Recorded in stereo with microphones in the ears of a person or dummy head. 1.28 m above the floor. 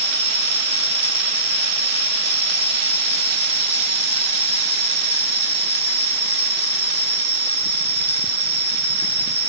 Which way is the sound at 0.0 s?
10° right (ahead or behind).